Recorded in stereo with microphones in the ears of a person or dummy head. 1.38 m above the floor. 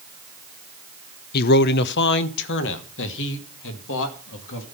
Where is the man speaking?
50° left (ahead or behind), 0.6 m; by 4.7 s 70° left (ahead or behind), 2.5 m.